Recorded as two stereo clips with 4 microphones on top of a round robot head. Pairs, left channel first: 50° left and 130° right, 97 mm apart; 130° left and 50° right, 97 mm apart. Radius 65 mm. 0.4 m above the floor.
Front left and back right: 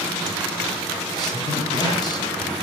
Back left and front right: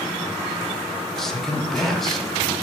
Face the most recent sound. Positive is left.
turn(degrees=45)